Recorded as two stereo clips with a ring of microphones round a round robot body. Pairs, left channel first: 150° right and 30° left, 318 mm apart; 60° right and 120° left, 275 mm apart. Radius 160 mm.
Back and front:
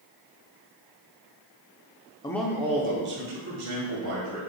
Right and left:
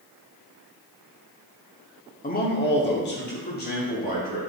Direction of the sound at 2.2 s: 85° right.